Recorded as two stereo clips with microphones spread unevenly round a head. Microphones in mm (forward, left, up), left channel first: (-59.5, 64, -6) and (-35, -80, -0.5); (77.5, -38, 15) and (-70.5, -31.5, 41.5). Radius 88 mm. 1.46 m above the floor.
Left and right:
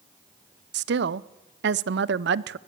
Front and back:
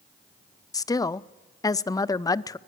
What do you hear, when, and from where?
0.7 s a woman speaking: 70° right, 0.5 m